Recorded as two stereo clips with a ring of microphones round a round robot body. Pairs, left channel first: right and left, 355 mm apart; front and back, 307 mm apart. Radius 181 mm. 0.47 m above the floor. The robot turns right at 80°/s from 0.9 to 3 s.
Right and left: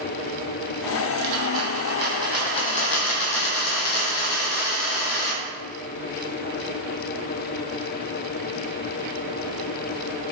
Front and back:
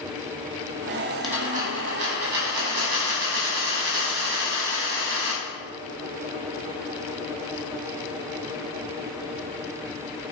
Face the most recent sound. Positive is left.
turn(degrees=-130)